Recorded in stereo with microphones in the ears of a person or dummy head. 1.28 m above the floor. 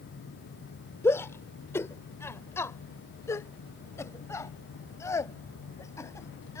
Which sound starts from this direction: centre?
A shout, at 1.0 s.